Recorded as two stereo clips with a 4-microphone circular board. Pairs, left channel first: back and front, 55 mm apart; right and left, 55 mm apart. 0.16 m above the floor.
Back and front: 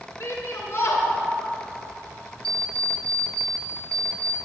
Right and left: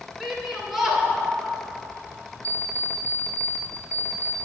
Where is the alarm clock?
105° left, 1.0 m.